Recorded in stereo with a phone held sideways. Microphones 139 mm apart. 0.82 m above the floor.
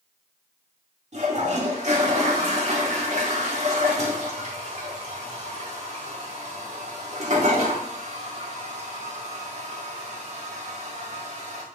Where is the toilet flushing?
55° right (ahead or behind), 1.9 m.